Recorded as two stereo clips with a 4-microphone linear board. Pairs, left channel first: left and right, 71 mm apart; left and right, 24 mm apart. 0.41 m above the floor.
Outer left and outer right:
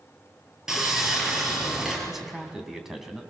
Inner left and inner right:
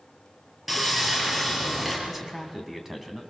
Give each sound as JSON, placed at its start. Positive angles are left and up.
{"t": 0.7, "sound": "sawing", "side_deg": -10, "distance_m": 5.5}
{"t": 2.1, "sound": "a man speaking", "side_deg": -5, "distance_m": 2.5}